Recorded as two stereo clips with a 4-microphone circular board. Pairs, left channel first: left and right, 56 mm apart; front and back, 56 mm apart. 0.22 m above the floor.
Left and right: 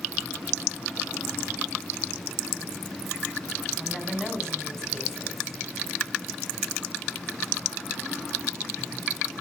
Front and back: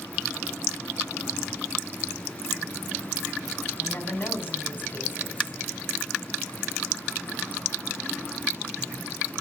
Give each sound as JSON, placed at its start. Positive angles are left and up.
{"t": 3.8, "sound": "a woman speaking", "azimuth_deg": 15, "distance_m": 1.7}